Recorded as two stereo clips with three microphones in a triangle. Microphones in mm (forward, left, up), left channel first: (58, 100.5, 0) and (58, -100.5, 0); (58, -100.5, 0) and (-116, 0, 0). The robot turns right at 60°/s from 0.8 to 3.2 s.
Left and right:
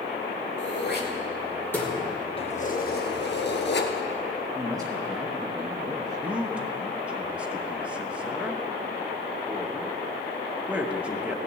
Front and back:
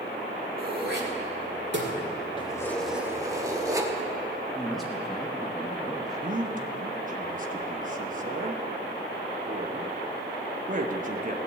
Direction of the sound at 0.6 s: 115° left.